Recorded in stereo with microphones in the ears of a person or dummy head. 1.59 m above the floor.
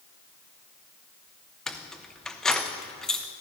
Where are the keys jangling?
5° left (ahead or behind), 0.6 m.